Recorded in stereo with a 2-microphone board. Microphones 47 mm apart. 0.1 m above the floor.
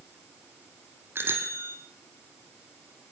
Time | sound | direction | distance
1.1 | a bicycle bell | 55° right (ahead or behind) | 3 m